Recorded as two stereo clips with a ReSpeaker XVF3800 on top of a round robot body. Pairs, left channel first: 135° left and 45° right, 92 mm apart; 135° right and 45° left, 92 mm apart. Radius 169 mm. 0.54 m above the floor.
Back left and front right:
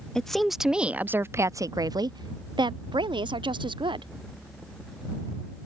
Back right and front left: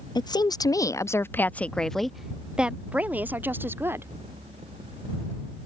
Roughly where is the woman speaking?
Behind right.